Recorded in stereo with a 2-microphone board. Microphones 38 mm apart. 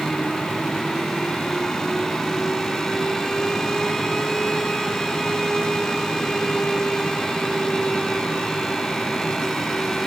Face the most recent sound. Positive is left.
No sound to turn to.